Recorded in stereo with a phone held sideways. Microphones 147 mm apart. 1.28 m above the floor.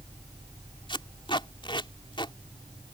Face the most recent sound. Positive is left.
turn(degrees=35)  # may be behind; listen again after turning